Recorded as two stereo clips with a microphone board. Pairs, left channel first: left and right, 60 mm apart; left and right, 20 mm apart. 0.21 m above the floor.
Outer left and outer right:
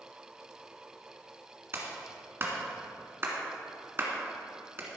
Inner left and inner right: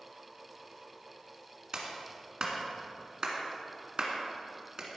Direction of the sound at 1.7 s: 40° right (ahead or behind).